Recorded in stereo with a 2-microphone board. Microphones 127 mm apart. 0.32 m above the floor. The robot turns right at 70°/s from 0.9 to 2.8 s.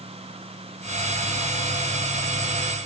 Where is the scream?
No scream in this recording.